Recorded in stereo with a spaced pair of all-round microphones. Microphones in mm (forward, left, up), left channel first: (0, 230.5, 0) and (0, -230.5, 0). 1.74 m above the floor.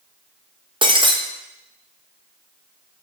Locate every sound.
0.8 s breaking glass: 10° right (ahead or behind), 1.1 m